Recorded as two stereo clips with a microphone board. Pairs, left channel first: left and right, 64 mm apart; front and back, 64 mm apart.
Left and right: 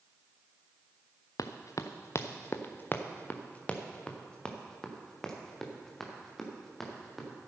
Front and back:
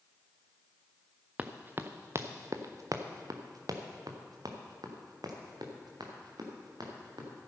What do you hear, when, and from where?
1.4 s running footsteps: 110° left, 1.0 m; by 7.3 s 175° left, 3.5 m